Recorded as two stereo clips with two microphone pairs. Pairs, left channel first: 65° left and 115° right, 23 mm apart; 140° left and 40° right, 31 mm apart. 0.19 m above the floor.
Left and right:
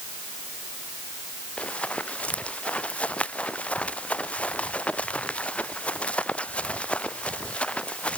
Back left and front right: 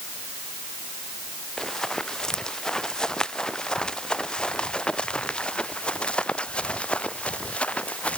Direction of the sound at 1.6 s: 65° left.